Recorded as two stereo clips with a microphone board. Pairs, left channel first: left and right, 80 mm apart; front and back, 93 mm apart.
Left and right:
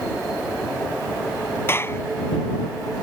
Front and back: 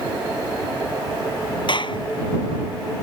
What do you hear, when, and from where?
1.7 s a clap: 30° left